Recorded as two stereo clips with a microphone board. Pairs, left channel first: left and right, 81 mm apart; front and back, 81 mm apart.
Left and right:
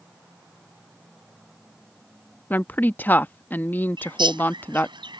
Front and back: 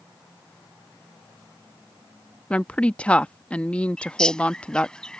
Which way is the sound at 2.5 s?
55° left.